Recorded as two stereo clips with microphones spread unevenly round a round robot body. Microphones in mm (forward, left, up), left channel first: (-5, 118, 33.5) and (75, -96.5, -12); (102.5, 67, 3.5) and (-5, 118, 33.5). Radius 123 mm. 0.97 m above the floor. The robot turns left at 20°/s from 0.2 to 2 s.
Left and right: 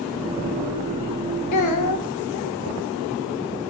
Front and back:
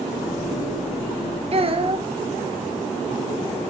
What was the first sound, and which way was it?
A child speaking, 120° left.